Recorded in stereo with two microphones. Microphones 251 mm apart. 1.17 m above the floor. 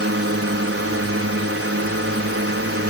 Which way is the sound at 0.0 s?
65° right (ahead or behind).